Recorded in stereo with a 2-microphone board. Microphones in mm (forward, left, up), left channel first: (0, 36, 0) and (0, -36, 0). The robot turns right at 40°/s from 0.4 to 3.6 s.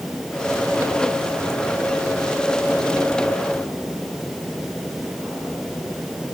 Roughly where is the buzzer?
I don't hear a buzzer.